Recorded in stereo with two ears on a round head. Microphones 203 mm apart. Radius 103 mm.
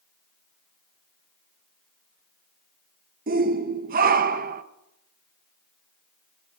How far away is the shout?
About 0.9 m.